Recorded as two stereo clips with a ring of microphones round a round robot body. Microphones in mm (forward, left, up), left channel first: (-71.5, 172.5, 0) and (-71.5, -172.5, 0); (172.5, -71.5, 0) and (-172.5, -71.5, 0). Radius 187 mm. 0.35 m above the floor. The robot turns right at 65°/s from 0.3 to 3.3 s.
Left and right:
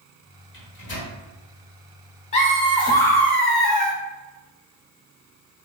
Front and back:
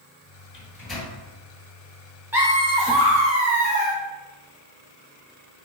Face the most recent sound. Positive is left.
turn(degrees=175)